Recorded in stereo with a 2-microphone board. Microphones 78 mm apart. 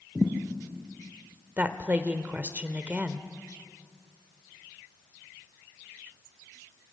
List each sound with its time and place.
0.1 s a thud: 10° right (ahead or behind), 3 m
1.6 s a woman speaking: 20° right (ahead or behind), 1.1 m